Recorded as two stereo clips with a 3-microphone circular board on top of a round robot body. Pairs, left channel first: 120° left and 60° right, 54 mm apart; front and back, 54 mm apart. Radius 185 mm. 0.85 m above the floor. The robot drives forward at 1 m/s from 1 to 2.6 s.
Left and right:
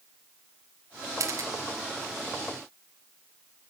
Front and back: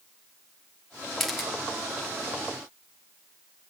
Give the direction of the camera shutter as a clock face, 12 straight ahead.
3 o'clock.